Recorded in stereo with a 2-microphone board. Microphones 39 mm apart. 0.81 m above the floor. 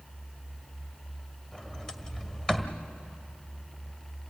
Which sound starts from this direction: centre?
A sliding door, at 1.5 s.